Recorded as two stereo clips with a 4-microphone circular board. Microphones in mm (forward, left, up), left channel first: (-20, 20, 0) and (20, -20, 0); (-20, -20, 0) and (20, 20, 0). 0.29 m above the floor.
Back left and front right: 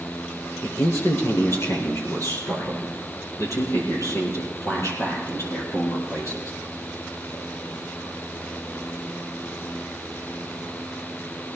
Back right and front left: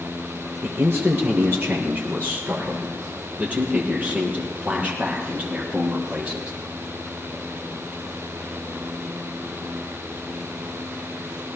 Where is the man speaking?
100° left, 4.5 m; by 6.5 s 115° left, 8 m.